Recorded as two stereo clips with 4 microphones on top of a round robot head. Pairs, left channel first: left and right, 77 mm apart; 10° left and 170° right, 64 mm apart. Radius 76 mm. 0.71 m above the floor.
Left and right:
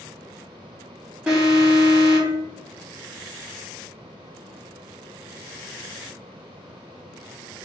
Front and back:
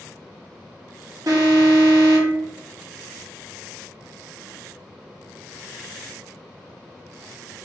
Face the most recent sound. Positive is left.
turn(degrees=-165)